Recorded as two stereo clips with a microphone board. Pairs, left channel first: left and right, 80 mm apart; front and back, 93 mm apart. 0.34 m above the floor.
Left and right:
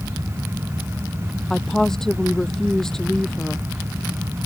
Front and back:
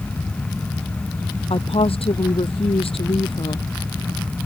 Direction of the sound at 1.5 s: 5° left.